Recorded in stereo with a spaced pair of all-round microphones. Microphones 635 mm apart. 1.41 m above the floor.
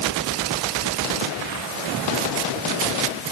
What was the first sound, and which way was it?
Only background noise.